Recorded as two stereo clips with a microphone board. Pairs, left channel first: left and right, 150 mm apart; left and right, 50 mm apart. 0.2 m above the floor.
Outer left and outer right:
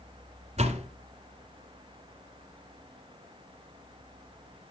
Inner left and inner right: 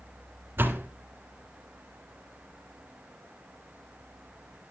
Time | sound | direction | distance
0.6 | a door slam | 45° right (ahead or behind) | 1.7 m